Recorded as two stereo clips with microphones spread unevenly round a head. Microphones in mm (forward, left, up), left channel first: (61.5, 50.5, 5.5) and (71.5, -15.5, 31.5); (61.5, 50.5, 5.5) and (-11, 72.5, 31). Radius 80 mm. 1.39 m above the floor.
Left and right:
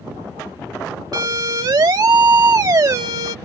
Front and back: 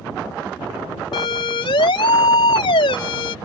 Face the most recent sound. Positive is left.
turn(degrees=-45)